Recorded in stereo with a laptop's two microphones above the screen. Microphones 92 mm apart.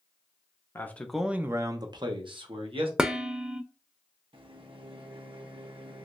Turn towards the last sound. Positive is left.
turn(degrees=-65)  # may be behind; listen again after turning